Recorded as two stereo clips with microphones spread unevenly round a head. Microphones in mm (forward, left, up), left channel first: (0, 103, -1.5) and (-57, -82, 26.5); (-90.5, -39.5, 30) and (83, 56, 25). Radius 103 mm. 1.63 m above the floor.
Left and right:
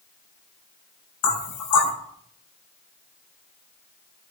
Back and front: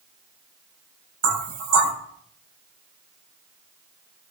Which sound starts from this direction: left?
Knocking, at 1.2 s.